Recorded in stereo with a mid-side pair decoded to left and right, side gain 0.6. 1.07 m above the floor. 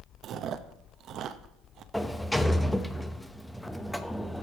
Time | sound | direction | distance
0.2 | chewing | 50° right | 0.8 m
1.9 | a sliding door | 5° left | 0.8 m